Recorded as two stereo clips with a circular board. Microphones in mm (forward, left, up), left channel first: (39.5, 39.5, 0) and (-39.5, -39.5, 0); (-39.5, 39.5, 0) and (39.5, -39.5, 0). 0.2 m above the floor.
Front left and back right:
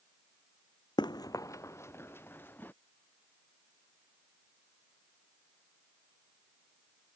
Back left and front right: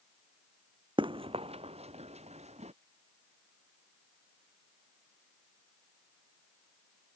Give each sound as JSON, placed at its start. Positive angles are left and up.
{"t": 1.0, "sound": "running footsteps", "azimuth_deg": -5}